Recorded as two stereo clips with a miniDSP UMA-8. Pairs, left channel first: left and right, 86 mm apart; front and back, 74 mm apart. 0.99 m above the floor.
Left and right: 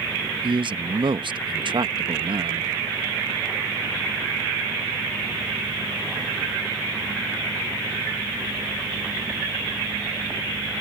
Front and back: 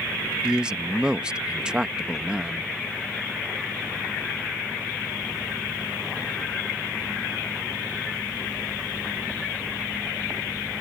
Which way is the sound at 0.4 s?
100° right.